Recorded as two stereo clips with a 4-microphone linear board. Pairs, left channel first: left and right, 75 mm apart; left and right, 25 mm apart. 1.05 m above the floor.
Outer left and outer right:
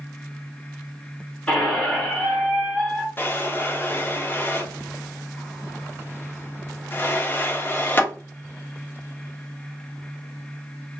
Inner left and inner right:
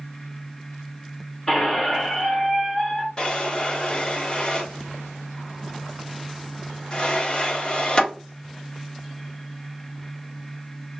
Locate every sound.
1.5 s a squeak: 15° left (ahead or behind), 1.0 m
3.2 s a drawer: 30° left (ahead or behind), 0.8 m